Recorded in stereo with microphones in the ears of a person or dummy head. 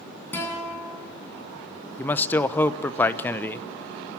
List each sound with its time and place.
0.3 s a guitar: 15° left (ahead or behind), 8.5 m
2.0 s a man speaking: 15° left (ahead or behind), 0.9 m